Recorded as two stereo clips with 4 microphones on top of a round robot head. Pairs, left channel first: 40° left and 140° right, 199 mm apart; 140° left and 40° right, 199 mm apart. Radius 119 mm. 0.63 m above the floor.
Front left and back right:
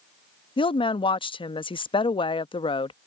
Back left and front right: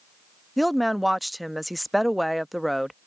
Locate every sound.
0.6 s a woman speaking: 50° left